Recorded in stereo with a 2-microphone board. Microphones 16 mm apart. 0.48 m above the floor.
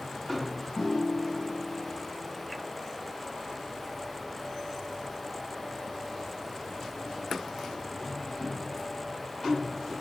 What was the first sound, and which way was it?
A piano, 40° left (ahead or behind).